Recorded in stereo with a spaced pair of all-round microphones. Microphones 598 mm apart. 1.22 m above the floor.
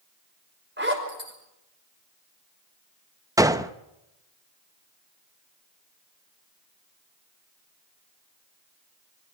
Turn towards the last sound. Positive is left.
turn(degrees=-5)  # may be behind; listen again after turning